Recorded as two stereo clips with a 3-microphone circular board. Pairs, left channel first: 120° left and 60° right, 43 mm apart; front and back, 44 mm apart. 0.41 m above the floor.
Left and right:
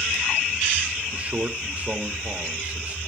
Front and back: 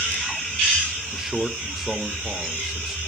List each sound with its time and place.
1.1 s a man speaking: 95° right, 1.2 m